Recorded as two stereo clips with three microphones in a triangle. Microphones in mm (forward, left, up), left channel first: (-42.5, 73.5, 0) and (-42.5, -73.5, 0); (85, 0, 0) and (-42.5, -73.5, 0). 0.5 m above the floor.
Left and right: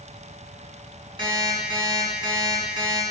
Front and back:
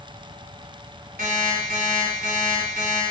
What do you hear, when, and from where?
1.2 s an alarm clock: 145° right, 2.5 m